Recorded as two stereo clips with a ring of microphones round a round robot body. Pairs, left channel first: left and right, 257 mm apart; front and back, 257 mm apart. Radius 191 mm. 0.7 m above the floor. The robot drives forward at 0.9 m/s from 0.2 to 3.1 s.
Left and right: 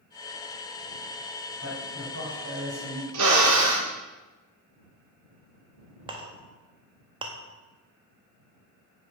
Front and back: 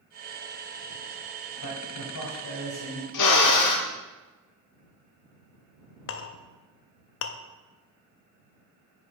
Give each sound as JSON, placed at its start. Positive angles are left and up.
{"t": 1.6, "sound": "a man speaking", "azimuth_deg": -30, "distance_m": 3.0}
{"t": 3.1, "sound": "a drill", "azimuth_deg": -40, "distance_m": 0.5}
{"t": 6.1, "sound": "a clink", "azimuth_deg": -20, "distance_m": 0.5}